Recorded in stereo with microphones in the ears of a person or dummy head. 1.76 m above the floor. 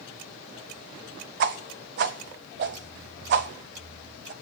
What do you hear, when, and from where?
1.4 s a whoosh: 40° right (ahead or behind), 0.5 m